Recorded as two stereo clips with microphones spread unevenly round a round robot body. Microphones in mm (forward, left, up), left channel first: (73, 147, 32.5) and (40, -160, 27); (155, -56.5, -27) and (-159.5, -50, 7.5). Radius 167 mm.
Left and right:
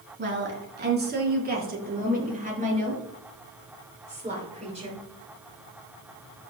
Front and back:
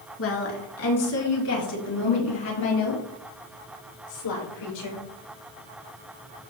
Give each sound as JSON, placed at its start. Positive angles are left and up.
{"t": 0.2, "sound": "a woman speaking", "azimuth_deg": -45, "distance_m": 3.5}